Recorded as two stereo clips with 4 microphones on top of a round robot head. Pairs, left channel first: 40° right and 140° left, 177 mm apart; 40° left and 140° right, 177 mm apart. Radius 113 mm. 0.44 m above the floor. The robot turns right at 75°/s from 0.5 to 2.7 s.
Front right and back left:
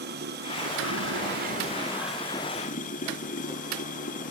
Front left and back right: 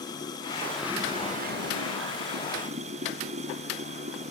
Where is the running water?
110° left; by 4.3 s 85° right.